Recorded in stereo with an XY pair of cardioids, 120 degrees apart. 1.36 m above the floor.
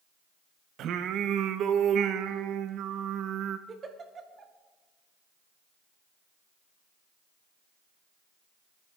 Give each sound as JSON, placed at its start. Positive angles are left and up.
{"t": 0.8, "sound": "singing", "azimuth_deg": -65, "distance_m": 0.9}
{"t": 3.7, "sound": "a giggle", "azimuth_deg": -40, "distance_m": 1.6}